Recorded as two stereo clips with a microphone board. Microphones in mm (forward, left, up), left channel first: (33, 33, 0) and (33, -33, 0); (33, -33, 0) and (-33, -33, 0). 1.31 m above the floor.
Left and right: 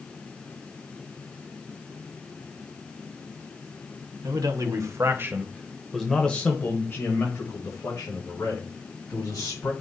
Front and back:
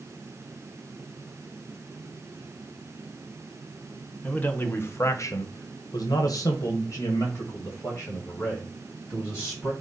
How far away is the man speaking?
About 1.2 m.